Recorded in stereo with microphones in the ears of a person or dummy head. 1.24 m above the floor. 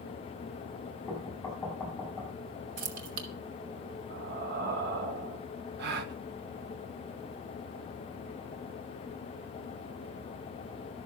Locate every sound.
1.1 s knocking: 10° left (ahead or behind), 6.5 m
2.8 s keys jangling: 75° right (ahead or behind), 2.0 m
4.1 s breathing: 55° right (ahead or behind), 4.5 m
5.8 s a gasp: 55° right (ahead or behind), 1.7 m